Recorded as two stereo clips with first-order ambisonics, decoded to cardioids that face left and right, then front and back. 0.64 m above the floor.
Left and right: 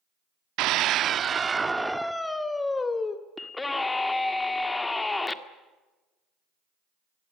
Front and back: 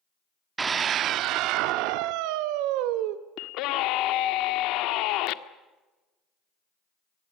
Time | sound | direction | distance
0.6 | a scream | 110° right | 0.9 m
3.4 | a scream | 10° left | 1.5 m